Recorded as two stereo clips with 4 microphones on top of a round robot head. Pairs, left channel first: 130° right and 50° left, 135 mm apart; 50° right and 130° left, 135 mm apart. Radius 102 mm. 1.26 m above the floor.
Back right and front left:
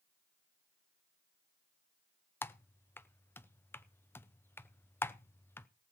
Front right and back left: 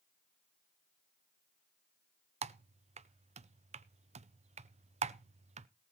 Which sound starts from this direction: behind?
Typing on a keyboard, at 2.4 s.